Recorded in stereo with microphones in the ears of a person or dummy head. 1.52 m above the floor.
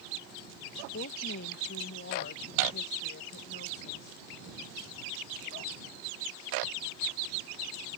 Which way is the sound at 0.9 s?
50° left (ahead or behind).